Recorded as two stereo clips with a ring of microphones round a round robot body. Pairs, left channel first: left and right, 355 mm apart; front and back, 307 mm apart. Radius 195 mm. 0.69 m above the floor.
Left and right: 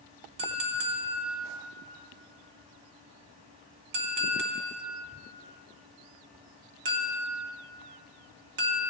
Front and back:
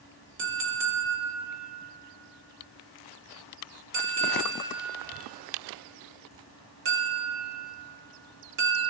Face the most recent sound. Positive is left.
turn(degrees=-125)